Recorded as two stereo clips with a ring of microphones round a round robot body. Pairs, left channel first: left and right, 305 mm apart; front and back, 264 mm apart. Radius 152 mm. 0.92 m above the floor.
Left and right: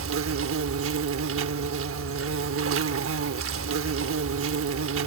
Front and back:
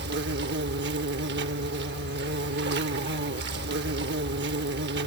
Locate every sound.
0.0 s an insect: 130° right